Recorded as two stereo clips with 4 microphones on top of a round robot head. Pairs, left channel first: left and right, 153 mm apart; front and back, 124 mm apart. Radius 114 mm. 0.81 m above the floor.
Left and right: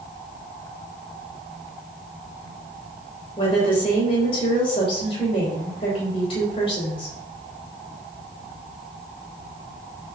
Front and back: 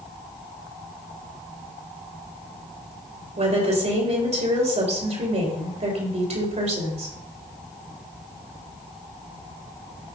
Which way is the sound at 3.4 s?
150° left.